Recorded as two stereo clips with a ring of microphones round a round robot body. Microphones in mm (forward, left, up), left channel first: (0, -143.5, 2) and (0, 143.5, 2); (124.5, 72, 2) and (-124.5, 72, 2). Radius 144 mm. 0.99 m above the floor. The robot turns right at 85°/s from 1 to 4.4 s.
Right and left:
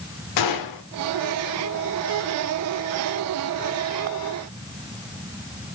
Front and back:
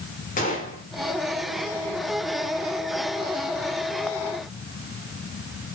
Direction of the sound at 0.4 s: 65° right.